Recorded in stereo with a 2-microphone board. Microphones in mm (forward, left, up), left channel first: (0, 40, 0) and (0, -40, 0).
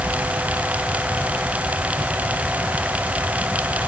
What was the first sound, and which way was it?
Only background noise.